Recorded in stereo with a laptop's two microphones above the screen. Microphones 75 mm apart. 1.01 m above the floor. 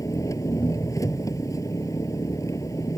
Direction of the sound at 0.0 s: 45° left (ahead or behind).